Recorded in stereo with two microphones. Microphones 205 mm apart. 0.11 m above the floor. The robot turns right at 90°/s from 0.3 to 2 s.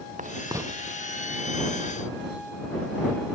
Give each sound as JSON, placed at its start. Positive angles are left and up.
{"t": 0.2, "sound": "writing", "side_deg": -40}